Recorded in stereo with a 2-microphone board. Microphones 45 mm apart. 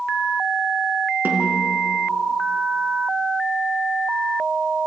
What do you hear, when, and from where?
1.2 s a snare drum: 45° right (ahead or behind), 3.5 m